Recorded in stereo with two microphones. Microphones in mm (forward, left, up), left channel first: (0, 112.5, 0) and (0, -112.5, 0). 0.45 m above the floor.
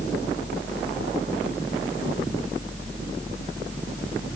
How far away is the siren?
I don't hear a siren.